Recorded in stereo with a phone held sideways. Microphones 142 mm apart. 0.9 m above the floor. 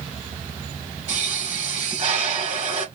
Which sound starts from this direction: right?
A pop, at 1.1 s.